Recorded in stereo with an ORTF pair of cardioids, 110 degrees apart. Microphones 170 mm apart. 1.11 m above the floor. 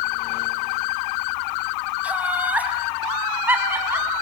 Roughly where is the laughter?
Ahead.